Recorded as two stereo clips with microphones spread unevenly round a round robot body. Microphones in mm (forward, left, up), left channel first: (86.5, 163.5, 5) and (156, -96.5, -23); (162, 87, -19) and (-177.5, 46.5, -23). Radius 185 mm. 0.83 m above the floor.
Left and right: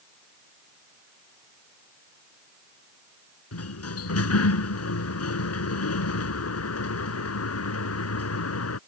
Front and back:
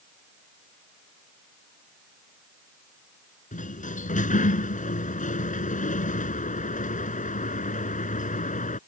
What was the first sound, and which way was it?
A sliding door, 75° left.